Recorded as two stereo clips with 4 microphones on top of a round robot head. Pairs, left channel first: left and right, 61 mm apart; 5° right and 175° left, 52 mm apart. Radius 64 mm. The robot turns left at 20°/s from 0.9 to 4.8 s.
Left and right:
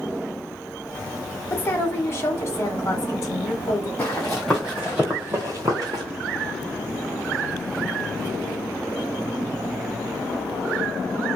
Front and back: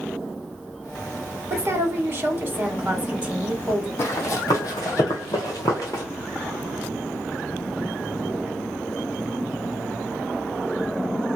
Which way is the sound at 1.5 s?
145° left.